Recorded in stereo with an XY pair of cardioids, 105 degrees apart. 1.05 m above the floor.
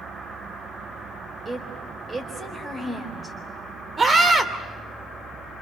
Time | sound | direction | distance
1.4 | a woman speaking | 30° right | 4 m
4.0 | a scream | 35° right | 3 m